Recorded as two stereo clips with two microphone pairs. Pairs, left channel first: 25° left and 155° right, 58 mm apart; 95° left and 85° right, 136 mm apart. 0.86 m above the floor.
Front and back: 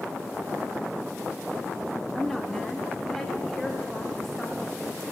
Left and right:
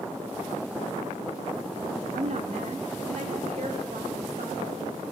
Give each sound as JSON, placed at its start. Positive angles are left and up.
{"t": 2.1, "sound": "a woman speaking", "azimuth_deg": -60, "distance_m": 1.0}